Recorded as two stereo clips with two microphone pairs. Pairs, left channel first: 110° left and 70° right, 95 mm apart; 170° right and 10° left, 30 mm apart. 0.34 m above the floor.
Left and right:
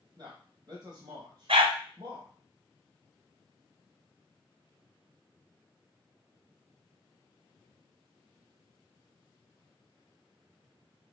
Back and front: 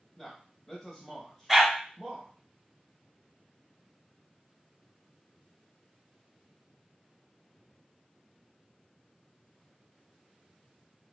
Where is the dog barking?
80° right, 1.0 m.